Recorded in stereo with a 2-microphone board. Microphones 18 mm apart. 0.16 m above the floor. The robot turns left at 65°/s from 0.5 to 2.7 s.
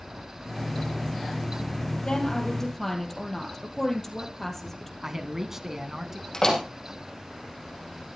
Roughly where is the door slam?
Left.